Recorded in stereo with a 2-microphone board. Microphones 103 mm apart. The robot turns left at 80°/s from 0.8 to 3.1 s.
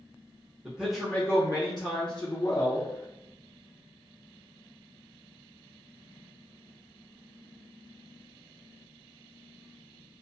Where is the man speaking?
170° right, 0.7 m; by 2.9 s 25° left, 0.7 m.